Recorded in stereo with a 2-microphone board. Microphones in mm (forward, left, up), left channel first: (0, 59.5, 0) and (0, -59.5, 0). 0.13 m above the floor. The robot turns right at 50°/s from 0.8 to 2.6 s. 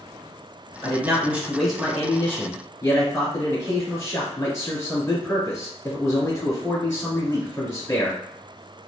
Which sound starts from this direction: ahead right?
A man speaking, at 0.8 s.